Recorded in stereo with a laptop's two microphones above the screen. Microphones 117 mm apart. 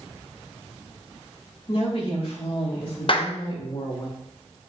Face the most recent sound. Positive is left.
turn(degrees=50)  # may be behind; listen again after turning